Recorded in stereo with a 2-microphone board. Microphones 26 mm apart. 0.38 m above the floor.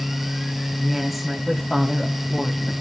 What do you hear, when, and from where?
0.8 s a woman speaking: 5° left (ahead or behind), 3 m